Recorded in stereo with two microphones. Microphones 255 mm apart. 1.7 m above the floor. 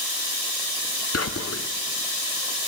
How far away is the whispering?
About 0.5 m.